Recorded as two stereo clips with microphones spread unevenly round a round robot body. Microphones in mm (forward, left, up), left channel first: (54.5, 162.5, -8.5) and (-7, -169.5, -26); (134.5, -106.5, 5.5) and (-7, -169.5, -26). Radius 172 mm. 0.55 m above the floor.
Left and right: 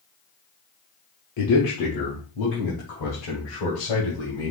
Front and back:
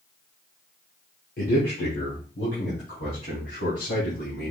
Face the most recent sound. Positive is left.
turn(degrees=65)